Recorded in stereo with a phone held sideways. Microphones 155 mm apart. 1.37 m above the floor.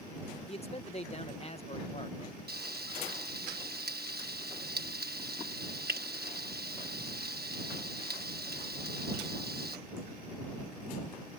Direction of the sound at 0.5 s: 40° left (ahead or behind).